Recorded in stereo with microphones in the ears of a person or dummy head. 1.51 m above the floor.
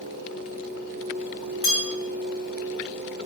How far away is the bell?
About 0.5 m.